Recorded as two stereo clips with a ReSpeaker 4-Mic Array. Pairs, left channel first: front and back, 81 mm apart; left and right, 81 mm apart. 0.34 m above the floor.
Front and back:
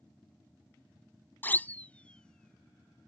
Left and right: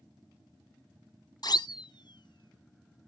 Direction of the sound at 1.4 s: 65° left.